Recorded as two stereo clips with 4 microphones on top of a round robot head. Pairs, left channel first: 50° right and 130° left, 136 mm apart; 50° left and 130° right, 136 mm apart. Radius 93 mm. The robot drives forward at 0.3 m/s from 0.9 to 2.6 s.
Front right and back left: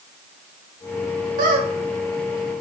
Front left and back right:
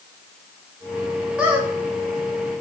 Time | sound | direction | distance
1.4 | a squeak | 150° left | 0.6 m